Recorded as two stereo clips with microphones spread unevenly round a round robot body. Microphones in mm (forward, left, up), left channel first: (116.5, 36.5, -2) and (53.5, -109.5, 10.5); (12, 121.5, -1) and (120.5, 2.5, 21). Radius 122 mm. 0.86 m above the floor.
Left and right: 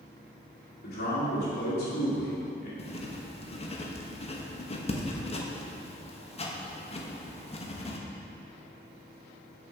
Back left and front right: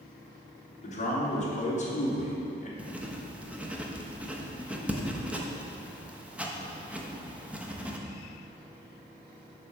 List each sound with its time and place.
0.8 s a man speaking: 95° left, 2.5 m
2.8 s writing: 40° left, 1.1 m